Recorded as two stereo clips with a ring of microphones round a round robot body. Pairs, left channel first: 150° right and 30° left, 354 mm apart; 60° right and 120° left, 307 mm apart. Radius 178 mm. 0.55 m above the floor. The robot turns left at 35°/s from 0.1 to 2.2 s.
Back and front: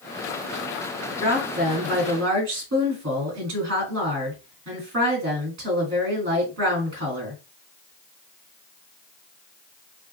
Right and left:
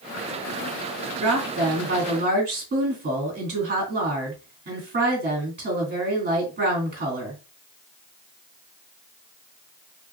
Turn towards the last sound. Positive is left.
turn(degrees=75)